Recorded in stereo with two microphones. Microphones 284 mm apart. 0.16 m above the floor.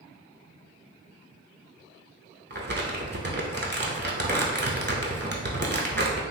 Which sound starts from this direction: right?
Crumpling, at 2.5 s.